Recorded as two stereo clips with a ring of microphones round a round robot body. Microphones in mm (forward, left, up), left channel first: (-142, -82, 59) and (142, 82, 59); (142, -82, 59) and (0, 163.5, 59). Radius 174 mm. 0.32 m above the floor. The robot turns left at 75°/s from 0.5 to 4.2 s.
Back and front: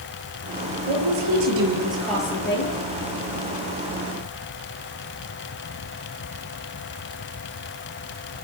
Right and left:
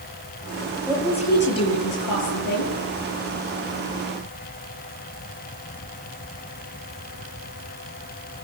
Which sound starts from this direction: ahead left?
A woman speaking, at 0.9 s.